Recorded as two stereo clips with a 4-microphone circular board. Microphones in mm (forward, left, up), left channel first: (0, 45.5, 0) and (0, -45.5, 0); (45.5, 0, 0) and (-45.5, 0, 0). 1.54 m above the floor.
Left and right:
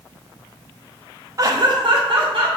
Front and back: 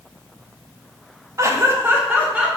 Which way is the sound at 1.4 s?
135° right.